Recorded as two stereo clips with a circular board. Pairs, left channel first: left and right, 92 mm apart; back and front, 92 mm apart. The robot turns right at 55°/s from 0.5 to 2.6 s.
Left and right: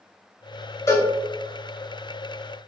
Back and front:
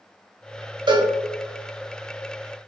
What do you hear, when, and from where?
0.9 s a cowbell: 30° left, 0.7 m; by 1.1 s 45° left, 0.7 m